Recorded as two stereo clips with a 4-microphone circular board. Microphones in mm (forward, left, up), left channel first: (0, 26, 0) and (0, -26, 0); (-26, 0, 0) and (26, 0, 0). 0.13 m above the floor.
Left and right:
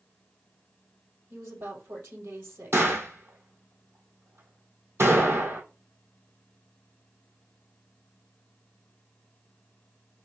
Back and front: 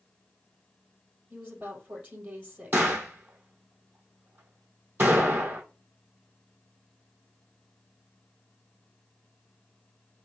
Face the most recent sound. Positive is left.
turn(degrees=-50)